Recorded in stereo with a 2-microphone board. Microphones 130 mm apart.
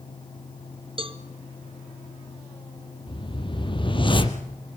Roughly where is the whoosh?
Left.